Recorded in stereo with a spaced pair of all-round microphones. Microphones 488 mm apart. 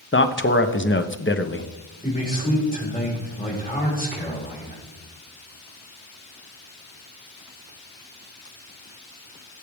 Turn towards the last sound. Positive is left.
turn(degrees=15)  # may be behind; listen again after turning